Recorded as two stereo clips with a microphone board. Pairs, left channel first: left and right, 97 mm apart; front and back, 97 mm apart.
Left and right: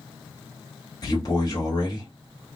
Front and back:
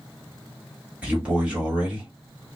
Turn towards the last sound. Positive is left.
turn(degrees=105)